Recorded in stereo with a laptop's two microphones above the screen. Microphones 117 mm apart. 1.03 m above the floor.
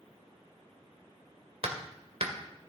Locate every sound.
1.6 s hammering: 65° right (ahead or behind), 2 m